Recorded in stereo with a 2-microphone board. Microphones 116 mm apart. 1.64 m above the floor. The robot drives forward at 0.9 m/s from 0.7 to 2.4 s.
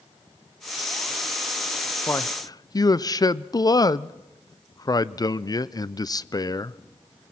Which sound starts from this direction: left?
A man speaking, at 2.1 s.